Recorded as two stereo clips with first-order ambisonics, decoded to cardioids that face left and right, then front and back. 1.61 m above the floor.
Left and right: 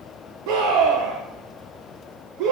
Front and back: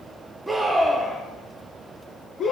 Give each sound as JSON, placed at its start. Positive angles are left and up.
{"t": 0.5, "sound": "a scream", "azimuth_deg": -95, "distance_m": 1.6}